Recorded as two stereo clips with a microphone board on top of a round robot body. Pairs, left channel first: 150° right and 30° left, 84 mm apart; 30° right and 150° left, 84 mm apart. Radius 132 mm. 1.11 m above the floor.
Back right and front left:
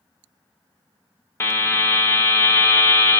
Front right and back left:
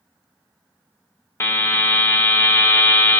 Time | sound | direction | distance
1.4 | a buzzer | 90° right | 0.7 m